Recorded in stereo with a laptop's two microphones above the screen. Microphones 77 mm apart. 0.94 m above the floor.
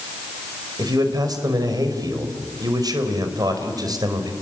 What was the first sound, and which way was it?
A man speaking, 55° right (ahead or behind).